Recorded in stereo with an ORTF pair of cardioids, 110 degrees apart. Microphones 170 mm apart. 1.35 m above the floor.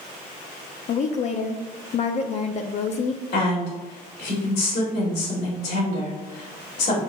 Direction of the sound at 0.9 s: 45° left.